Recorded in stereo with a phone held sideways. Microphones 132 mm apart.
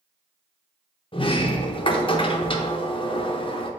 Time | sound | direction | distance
1.1 | a sliding door | 40° left (ahead or behind) | 0.7 m